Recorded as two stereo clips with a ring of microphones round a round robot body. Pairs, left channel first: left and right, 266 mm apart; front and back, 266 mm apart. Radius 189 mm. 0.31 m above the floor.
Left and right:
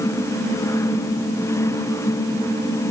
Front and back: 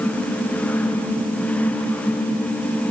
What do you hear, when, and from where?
Only background noise.